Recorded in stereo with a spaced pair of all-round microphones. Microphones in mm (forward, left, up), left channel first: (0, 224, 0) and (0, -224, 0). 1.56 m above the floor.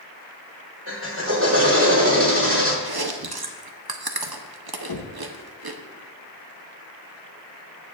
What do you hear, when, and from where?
0.9 s a drill: 25° right (ahead or behind), 2.5 m
2.9 s chewing: 55° right (ahead or behind), 0.8 m
4.9 s knocking: 50° left (ahead or behind), 0.9 m